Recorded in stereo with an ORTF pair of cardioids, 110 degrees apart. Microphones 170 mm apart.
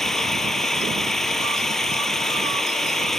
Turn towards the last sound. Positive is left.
turn(degrees=0)